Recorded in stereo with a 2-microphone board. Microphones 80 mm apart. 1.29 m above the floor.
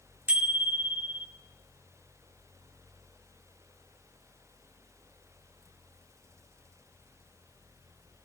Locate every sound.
0.3 s a bicycle bell: 20° right (ahead or behind), 2.5 m